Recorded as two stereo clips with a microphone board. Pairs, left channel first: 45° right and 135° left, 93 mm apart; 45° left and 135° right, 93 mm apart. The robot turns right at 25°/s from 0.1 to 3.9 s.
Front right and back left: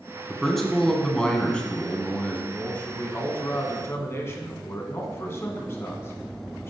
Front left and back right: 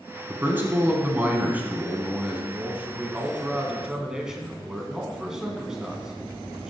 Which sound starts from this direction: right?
A man speaking, at 2.5 s.